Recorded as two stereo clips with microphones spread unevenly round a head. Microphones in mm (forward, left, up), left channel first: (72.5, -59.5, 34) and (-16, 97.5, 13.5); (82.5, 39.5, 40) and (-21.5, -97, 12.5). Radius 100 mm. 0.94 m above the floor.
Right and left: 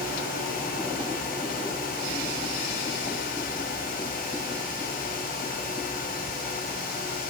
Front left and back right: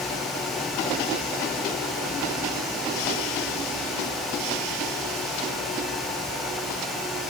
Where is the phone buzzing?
No phone buzzing in this recording.